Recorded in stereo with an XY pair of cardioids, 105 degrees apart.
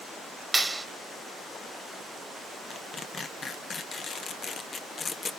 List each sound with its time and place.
0.5 s a clap: 15° right, 1.9 m
2.7 s tearing paper: 40° left, 1.1 m